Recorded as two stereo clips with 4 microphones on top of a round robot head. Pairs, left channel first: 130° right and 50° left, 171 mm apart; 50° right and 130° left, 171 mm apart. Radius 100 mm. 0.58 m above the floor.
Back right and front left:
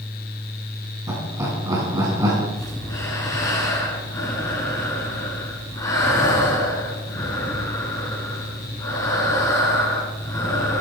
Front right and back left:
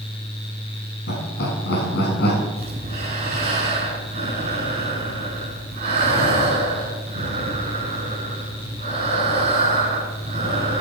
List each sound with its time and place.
1.1 s laughter: 20° right, 5.5 m
2.6 s breathing: 165° left, 7 m